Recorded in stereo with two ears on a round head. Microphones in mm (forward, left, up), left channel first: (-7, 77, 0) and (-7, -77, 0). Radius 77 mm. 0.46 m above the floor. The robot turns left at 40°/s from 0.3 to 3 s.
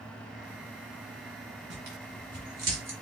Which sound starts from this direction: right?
Tearing paper, at 1.7 s.